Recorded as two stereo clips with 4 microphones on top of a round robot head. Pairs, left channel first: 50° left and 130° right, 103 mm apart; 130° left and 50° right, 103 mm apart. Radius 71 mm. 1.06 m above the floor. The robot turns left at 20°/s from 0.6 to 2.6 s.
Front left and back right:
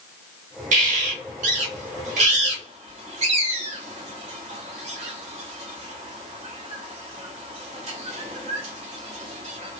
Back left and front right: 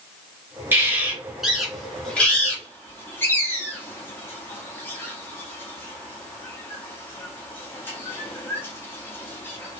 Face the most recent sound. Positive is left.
turn(degrees=-160)